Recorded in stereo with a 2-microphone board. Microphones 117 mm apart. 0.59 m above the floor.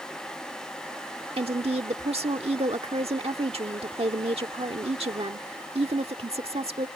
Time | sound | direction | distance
1.4 | a woman speaking | 55° right (ahead or behind) | ?